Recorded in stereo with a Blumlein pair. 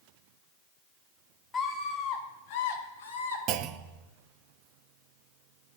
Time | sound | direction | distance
1.5 | a scream | 15° left | 2.5 m
3.5 | a clunk | 35° right | 0.7 m